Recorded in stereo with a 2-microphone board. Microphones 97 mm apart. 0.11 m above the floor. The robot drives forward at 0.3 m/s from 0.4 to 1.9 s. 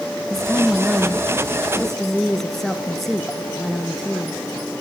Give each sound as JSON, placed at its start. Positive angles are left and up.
{"t": 0.3, "sound": "a woman speaking", "side_deg": 5, "distance_m": 1.1}